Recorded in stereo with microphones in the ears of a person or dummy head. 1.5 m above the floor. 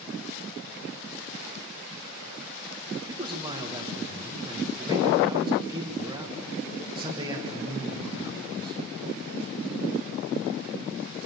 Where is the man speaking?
15° right (ahead or behind), 1.5 m.